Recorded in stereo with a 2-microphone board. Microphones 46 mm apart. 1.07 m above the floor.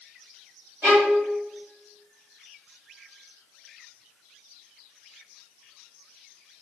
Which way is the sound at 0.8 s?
80° right.